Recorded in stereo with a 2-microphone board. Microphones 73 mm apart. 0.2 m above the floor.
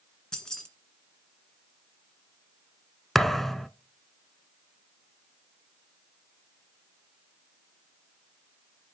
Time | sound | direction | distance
0.3 | keys jangling | 10° left (ahead or behind) | 1.8 m
3.1 | a thud | 5° left (ahead or behind) | 0.5 m